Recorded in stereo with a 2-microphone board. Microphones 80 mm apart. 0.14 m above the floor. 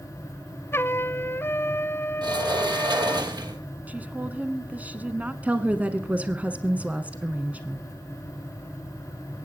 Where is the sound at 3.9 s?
20° right (ahead or behind), 1.1 m.